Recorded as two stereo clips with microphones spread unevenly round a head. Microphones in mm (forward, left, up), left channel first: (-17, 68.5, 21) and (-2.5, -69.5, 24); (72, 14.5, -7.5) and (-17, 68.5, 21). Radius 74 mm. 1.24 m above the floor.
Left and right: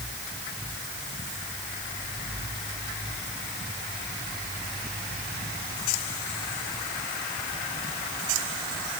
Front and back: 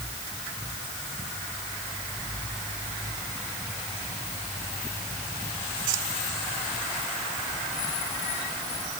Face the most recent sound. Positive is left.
No sound to turn to.